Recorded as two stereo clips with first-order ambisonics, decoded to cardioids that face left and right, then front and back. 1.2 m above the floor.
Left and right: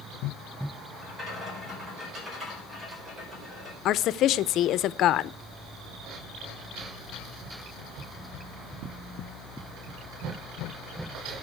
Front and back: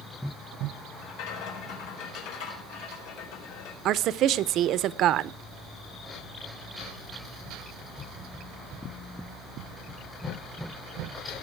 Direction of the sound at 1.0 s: 10° right.